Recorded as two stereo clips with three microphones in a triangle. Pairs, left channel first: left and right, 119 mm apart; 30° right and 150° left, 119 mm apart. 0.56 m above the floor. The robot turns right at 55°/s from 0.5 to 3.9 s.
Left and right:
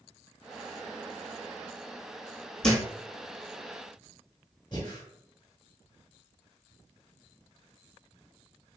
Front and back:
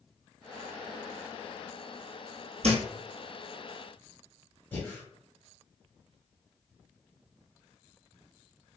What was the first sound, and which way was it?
A thud, 175° left.